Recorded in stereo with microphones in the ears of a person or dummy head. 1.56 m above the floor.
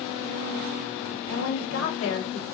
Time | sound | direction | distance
1.3 | a woman speaking | 65° left (ahead or behind) | 1.2 m